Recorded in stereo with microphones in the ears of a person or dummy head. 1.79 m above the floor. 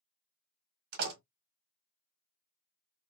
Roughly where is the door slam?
Right.